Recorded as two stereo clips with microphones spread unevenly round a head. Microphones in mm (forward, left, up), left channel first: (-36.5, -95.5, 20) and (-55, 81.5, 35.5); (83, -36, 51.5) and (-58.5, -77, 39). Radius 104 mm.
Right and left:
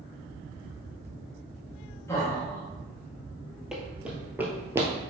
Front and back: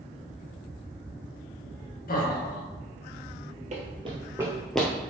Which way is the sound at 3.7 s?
170° left.